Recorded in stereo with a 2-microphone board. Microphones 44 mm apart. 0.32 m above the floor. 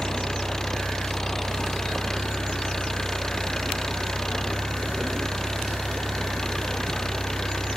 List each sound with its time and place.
0.0 s an engine running: 10° left (ahead or behind)